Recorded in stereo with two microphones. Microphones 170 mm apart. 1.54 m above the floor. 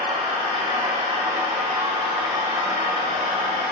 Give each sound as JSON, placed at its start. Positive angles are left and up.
{"t": 0.0, "sound": "an engine running", "side_deg": -30, "distance_m": 5.5}